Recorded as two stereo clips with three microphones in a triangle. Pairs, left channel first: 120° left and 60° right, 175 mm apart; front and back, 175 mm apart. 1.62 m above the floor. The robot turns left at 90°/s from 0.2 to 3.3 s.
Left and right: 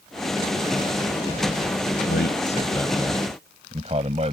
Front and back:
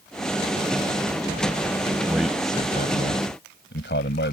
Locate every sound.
2.1 s a man speaking: 105° left; by 4.3 s 5° right